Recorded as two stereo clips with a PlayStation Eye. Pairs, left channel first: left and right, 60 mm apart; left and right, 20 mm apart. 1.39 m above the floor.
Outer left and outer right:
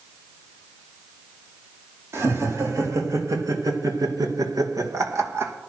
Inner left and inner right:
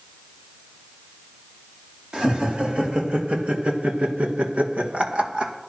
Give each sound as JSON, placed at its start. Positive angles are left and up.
{"t": 2.1, "sound": "laughter", "side_deg": -45, "distance_m": 4.0}